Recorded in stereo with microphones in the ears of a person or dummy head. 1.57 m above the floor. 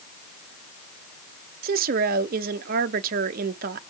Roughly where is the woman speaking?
Right.